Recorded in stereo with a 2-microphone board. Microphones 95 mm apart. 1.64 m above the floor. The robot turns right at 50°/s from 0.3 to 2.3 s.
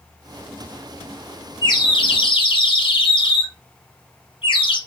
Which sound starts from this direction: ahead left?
A bird, at 1.6 s.